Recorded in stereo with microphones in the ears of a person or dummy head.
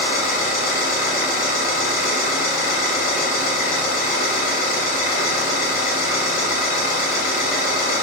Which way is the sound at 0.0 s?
50° left (ahead or behind).